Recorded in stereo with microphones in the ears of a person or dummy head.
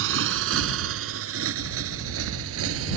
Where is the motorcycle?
80° right; by 3.0 s 85° right.